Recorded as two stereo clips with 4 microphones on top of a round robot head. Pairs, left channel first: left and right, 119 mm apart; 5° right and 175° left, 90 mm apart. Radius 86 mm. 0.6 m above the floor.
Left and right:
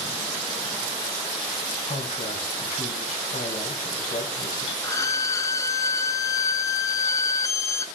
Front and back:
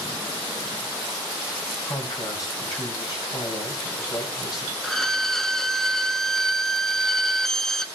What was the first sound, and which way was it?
A man speaking, 40° left.